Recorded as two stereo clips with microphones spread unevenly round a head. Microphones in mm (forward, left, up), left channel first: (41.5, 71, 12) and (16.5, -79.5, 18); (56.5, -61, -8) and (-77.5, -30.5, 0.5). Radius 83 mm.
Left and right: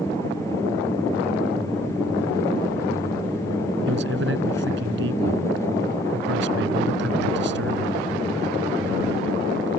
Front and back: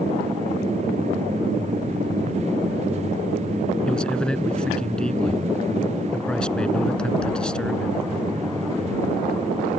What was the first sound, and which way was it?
A man speaking, 95° right.